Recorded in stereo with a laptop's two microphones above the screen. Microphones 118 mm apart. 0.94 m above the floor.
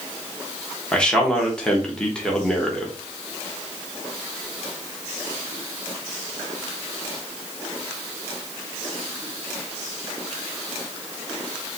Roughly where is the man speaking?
Centre.